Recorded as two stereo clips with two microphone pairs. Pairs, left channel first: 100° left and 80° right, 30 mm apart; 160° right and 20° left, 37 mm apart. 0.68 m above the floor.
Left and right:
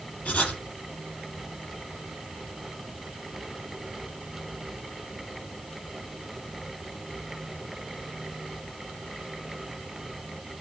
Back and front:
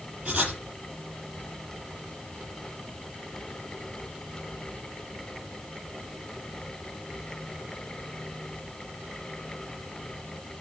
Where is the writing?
85° left, 7.5 m.